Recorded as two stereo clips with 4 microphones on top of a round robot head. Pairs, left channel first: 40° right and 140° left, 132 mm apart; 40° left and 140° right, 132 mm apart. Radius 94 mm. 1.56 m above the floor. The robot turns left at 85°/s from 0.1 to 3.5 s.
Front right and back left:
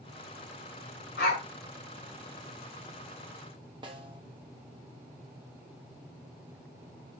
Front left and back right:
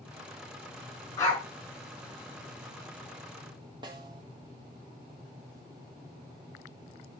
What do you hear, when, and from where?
1.2 s a dog barking: 25° right, 5.5 m; by 1.4 s 50° right, 5.5 m
3.8 s a snare drum: straight behind, 1.0 m